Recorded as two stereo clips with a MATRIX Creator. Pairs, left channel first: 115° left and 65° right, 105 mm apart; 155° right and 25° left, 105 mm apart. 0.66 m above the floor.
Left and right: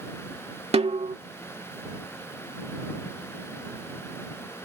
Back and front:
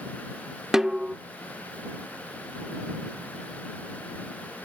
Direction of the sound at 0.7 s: 65° right.